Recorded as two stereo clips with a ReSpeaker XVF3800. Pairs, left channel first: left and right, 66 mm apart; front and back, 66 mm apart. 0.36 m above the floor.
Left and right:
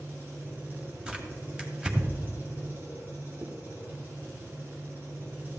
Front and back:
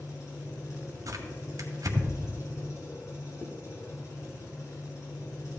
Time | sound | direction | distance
0.0 | an engine running | 35° right | 5 m
1.1 | tearing paper | 160° right | 1.7 m
3.4 | a zipper | 45° right | 1.5 m